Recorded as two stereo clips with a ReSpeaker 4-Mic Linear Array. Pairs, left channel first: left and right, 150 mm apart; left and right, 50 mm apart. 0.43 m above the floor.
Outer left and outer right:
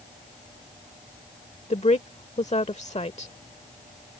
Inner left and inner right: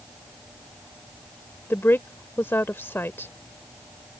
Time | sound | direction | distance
1.7 | a woman speaking | 50° left (ahead or behind) | ?